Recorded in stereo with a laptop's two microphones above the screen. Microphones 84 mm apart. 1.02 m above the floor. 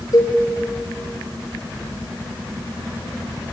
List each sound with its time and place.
0.1 s a cowbell: 50° left (ahead or behind), 4 m